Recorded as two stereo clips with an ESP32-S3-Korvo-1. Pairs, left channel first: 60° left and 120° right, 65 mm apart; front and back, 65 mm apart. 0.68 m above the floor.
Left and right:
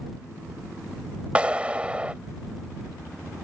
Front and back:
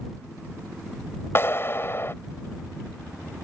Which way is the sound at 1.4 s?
50° right.